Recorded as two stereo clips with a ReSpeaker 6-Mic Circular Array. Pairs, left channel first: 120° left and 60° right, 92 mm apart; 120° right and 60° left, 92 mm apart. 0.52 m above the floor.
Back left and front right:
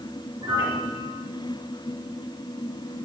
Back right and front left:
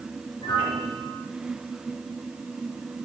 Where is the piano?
100° right, 5.5 m.